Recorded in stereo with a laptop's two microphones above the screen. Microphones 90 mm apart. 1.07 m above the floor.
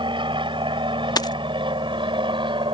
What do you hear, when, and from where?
0.0 s an aircraft: 65° right (ahead or behind)
1.2 s a dropped coin: 50° left (ahead or behind)